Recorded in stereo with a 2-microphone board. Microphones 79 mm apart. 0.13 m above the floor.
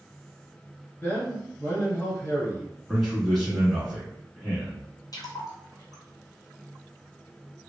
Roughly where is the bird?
No bird in this recording.